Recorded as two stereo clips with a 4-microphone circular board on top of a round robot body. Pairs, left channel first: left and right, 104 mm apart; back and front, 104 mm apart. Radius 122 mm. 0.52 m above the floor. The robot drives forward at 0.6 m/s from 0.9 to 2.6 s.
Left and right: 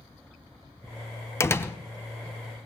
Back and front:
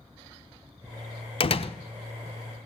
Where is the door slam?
155° left, 1.0 m; by 1.7 s 160° left, 1.2 m.